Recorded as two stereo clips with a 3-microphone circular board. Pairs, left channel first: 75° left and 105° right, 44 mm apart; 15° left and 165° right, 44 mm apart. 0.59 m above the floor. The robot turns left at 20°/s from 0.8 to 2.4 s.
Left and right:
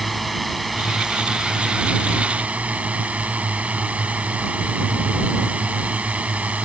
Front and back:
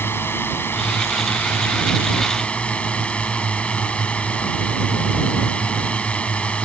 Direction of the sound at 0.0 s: 15° right.